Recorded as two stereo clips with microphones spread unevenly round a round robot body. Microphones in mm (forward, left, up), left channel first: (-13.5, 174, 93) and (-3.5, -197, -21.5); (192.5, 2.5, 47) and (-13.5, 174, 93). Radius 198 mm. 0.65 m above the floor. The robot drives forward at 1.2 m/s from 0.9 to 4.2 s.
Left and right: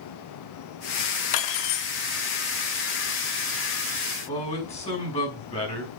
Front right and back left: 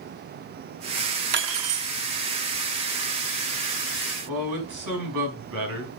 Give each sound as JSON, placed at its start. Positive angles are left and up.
{"t": 1.3, "sound": "cutlery clinking", "azimuth_deg": 85, "distance_m": 1.1}
{"t": 4.3, "sound": "a man speaking", "azimuth_deg": 165, "distance_m": 5.0}